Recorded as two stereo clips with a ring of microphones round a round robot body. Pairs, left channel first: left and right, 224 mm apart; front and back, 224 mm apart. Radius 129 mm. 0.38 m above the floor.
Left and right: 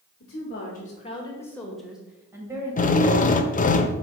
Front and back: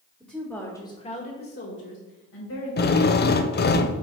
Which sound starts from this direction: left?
A woman speaking, at 0.2 s.